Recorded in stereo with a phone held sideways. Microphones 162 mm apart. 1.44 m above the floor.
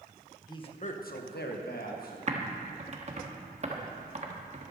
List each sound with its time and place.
0.5 s a man speaking: 25° left (ahead or behind), 1.2 m; by 2.2 s 65° left (ahead or behind), 2 m
2.3 s typing on a keyboard: 45° right (ahead or behind), 1.2 m